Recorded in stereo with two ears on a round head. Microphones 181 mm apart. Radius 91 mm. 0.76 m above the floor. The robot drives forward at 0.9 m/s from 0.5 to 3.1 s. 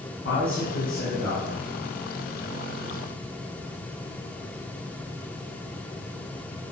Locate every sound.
0.2 s a man speaking: 50° left (ahead or behind), 6.5 m; by 1.7 s 40° left (ahead or behind), 7 m